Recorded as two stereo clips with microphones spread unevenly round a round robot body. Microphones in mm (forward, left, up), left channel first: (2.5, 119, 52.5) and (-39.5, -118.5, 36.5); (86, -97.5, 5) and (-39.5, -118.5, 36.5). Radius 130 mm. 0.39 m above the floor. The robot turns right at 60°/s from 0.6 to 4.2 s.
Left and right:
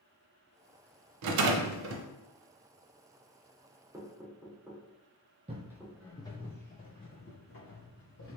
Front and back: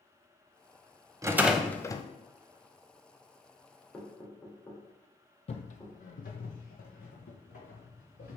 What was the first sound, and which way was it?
A rattle, 100° right.